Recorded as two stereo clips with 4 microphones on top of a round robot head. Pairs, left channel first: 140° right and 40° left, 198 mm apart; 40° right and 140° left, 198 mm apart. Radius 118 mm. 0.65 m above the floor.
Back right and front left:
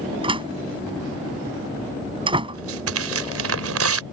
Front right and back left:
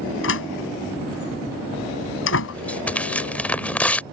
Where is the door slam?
20° right.